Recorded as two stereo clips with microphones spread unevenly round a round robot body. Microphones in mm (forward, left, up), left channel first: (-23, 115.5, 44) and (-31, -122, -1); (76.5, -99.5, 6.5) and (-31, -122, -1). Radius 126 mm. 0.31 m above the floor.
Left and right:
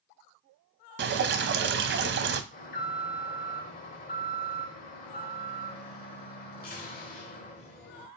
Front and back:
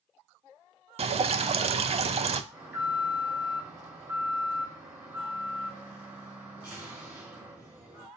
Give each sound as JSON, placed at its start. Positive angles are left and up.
{"t": 1.0, "sound": "dripping", "azimuth_deg": -135, "distance_m": 0.5}
{"t": 2.5, "sound": "an alarm", "azimuth_deg": 130, "distance_m": 1.2}